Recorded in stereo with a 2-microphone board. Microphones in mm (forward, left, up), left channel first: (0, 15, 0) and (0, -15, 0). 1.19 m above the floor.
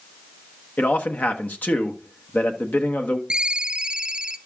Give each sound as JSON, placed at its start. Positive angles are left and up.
{"t": 0.8, "sound": "a man speaking", "side_deg": 75, "distance_m": 1.1}
{"t": 3.3, "sound": "a ringtone", "side_deg": -25, "distance_m": 0.5}